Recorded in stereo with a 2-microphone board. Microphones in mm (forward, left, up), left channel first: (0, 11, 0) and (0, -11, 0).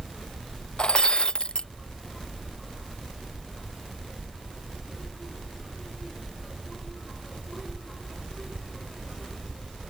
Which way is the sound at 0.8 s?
50° left (ahead or behind).